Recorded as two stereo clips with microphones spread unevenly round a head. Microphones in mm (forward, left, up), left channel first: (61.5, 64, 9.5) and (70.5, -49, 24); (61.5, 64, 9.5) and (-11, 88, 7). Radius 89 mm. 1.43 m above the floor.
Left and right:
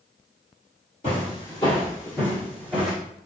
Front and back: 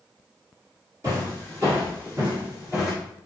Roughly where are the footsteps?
Behind left.